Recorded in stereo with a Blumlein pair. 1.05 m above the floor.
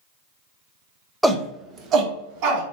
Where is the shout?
Straight ahead, 0.5 m; by 2.6 s 45° right, 1.1 m.